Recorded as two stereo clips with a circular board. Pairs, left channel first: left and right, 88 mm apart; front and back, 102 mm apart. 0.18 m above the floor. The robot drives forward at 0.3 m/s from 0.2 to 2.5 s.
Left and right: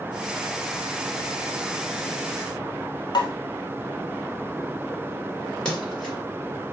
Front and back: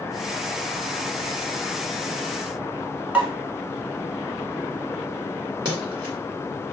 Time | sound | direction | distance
3.1 | a pop | 105° left | 0.8 m
5.7 | a splash | 170° left | 1.9 m